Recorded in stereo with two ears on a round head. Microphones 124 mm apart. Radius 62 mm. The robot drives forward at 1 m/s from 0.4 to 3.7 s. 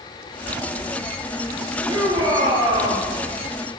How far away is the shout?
About 9 m.